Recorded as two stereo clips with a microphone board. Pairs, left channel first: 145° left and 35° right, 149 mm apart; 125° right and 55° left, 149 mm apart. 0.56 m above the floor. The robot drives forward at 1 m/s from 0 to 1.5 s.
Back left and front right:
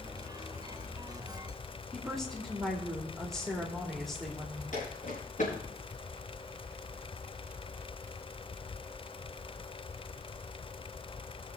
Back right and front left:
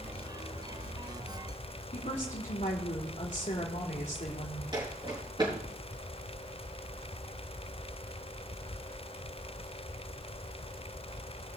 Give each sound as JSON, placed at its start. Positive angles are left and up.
{"t": 1.9, "sound": "a woman speaking", "azimuth_deg": -125, "distance_m": 2.0}
{"t": 4.7, "sound": "footsteps", "azimuth_deg": 115, "distance_m": 5.0}